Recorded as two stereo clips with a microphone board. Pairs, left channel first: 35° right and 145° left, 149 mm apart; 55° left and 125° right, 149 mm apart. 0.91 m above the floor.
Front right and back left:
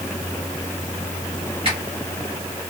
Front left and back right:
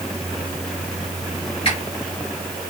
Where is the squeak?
100° left, 1.2 m.